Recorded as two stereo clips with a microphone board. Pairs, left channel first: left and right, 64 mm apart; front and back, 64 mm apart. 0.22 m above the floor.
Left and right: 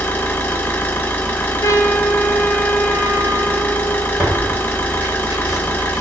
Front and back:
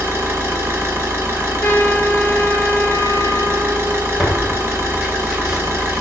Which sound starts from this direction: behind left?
An engine running, at 0.0 s.